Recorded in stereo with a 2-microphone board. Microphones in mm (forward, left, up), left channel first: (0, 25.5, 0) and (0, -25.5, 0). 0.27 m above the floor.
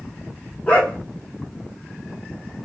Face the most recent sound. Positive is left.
turn(degrees=20)  # may be behind; listen again after turning